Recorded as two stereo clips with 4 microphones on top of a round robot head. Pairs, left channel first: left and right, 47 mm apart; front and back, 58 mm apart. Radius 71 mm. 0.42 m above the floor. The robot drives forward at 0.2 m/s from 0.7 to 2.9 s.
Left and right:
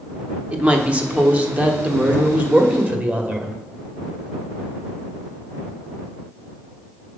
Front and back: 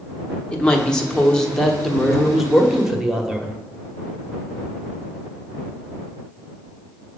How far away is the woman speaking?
About 1.1 m.